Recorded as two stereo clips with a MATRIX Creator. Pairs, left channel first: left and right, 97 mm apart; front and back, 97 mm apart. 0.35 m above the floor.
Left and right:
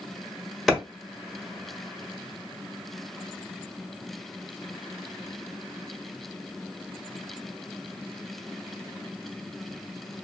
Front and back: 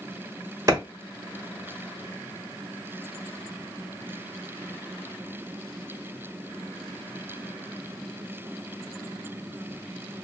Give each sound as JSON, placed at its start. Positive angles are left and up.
{"t": 0.7, "sound": "a clap", "azimuth_deg": 175, "distance_m": 1.3}